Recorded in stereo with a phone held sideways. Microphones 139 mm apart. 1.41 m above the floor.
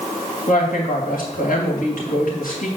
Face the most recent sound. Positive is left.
turn(degrees=85)